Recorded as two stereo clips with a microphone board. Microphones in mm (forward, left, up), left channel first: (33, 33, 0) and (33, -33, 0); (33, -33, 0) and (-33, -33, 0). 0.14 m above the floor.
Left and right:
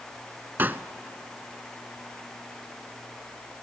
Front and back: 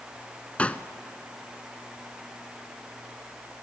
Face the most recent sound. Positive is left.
turn(degrees=-55)